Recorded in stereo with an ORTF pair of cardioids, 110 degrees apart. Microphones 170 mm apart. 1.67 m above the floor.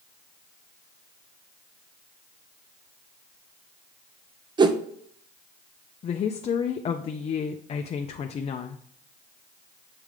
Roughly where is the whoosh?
Ahead right.